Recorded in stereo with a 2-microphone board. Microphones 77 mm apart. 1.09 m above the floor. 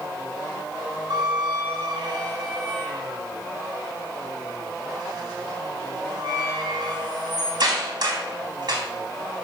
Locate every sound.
1.1 s a squeak: 60° right (ahead or behind), 3.5 m